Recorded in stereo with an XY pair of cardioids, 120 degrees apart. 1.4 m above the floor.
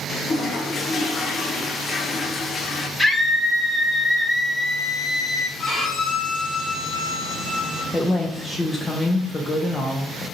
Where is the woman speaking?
20° left, 0.6 m.